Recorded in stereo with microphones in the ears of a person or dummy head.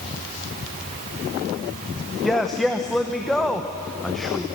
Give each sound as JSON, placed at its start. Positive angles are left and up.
{"t": 2.2, "sound": "a man speaking", "side_deg": 0, "distance_m": 1.0}